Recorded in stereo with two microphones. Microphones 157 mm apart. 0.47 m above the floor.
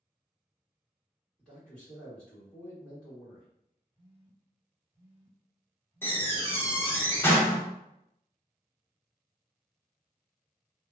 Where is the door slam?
15° left (ahead or behind), 0.6 m.